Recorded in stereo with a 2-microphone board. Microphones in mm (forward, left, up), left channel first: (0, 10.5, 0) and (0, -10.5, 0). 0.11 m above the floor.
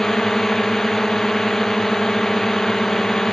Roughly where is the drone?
Centre.